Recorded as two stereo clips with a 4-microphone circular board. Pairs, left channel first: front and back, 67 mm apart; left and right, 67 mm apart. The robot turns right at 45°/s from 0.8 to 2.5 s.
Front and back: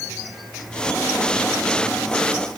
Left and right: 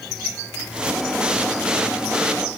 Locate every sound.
Only background noise.